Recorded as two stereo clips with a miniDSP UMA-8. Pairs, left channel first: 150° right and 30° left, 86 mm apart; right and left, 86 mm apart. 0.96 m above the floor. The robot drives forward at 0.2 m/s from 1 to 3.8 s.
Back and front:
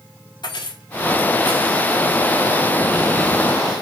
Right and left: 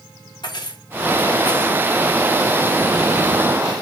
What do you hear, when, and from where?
0.4 s keys jangling: 120° right, 1.7 m; by 1.8 s 125° right, 1.8 m